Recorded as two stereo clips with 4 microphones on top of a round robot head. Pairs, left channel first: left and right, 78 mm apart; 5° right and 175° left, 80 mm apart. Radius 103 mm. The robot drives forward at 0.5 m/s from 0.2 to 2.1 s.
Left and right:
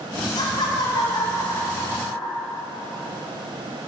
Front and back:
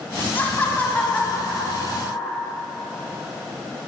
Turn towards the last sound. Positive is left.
turn(degrees=75)